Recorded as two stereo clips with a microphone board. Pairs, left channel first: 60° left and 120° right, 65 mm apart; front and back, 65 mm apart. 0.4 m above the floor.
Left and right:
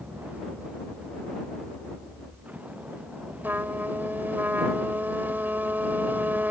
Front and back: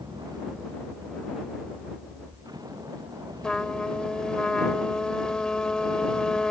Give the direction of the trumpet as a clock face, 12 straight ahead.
2 o'clock.